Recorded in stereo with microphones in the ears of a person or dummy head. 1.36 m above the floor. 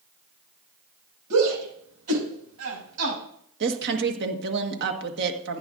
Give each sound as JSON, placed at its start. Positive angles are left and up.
{"t": 1.3, "sound": "a shout", "side_deg": -80, "distance_m": 7.0}
{"t": 3.6, "sound": "a woman speaking", "side_deg": -55, "distance_m": 1.6}